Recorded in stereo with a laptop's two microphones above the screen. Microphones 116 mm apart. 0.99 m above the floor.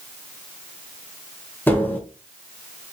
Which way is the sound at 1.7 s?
15° left (ahead or behind).